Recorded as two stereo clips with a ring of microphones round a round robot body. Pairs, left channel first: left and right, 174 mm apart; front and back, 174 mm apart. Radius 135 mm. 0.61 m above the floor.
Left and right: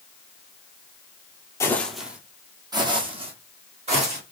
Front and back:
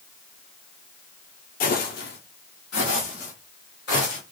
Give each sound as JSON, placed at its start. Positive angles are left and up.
{"t": 1.6, "sound": "footsteps", "azimuth_deg": 20, "distance_m": 1.0}